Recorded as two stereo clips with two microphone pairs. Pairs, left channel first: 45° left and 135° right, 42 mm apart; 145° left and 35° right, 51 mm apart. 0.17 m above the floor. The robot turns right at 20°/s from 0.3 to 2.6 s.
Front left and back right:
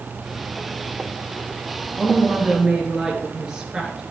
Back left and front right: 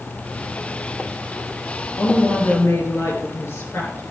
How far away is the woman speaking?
About 3.5 m.